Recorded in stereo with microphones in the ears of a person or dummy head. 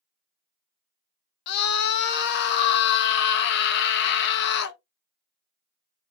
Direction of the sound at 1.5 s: 55° left (ahead or behind).